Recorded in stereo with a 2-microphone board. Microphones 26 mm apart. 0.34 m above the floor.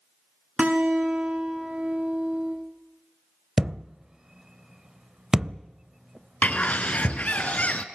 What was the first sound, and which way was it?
A guitar, 65° right (ahead or behind).